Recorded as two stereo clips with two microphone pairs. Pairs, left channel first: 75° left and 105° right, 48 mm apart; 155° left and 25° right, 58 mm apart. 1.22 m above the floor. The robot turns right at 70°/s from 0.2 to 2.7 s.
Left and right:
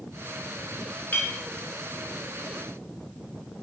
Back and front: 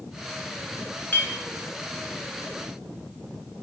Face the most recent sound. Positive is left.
turn(degrees=-145)